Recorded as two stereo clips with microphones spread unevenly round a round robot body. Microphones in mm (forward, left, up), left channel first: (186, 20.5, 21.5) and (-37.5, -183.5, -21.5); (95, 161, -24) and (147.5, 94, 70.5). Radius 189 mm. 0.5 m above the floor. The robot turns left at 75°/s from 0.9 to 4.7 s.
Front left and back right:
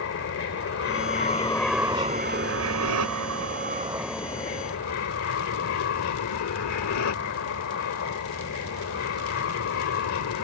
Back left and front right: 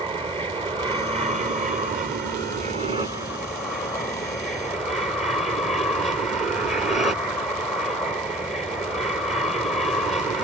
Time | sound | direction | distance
0.0 | an aircraft | 15° left | ?